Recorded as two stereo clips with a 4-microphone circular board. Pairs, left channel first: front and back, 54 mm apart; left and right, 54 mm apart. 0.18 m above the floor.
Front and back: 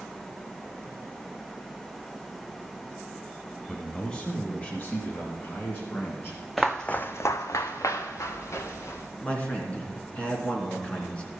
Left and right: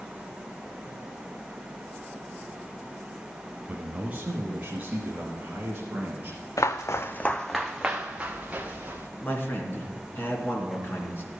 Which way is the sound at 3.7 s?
75° right.